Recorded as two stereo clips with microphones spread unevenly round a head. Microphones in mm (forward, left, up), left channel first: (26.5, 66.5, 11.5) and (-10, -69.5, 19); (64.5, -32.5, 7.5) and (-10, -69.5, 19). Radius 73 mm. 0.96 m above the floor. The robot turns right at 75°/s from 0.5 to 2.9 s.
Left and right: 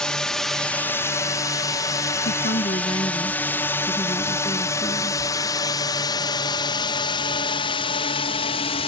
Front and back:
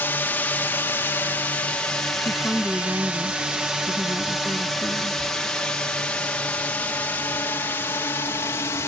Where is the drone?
5° right; by 8.9 s 65° left.